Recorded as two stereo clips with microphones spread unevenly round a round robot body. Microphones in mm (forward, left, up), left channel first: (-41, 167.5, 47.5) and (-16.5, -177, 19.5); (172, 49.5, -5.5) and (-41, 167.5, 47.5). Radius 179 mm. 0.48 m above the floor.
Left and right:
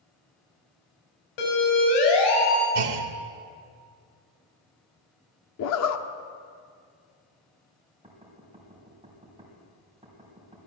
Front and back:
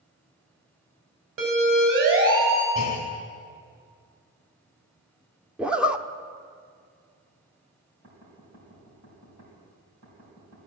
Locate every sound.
1.4 s a siren: 110° left, 3.5 m
2.8 s a clunk: 90° right, 1.0 m
5.6 s a zipper: 55° left, 0.7 m
8.0 s knocking: 160° right, 3 m